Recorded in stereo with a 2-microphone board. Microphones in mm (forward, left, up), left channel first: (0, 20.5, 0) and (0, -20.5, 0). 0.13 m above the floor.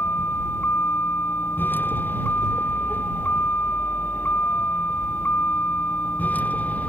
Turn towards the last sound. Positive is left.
turn(degrees=40)  # may be behind; listen again after turning